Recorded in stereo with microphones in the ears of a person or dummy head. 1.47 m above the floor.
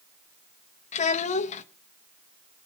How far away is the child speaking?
About 1.1 m.